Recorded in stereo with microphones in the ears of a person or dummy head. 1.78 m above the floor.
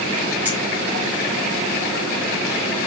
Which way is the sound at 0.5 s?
10° right (ahead or behind).